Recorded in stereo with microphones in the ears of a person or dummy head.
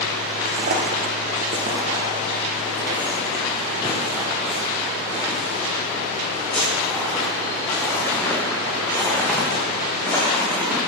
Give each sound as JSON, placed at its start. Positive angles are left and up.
{"t": 0.5, "sound": "footsteps", "side_deg": -35, "distance_m": 1.8}